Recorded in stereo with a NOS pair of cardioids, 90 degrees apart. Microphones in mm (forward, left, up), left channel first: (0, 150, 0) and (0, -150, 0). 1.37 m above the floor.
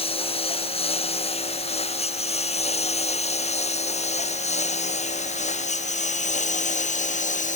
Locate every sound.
0.0 s a lawn mower: 20° left; by 7.6 s 25° left